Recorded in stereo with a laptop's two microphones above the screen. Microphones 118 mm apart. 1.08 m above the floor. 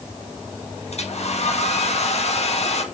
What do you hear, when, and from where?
0.9 s a hair dryer: 65° left (ahead or behind), 1.9 m